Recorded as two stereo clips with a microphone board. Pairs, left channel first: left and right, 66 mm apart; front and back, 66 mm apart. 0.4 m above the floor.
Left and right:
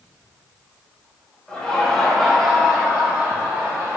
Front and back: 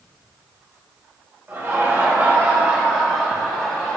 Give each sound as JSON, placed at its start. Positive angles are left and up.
{"t": 1.5, "sound": "laughter", "azimuth_deg": 155, "distance_m": 1.2}